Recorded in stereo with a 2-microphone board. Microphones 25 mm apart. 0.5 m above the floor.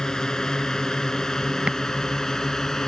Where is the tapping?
45° right (ahead or behind).